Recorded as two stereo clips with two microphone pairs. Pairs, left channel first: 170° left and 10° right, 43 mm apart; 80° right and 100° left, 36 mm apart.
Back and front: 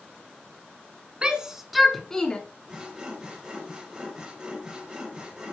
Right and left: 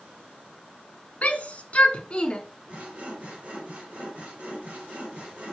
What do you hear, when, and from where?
1.2 s a shout: 65° right, 1.7 m; by 2.4 s 135° right, 1.7 m
2.7 s sawing: 60° left, 4 m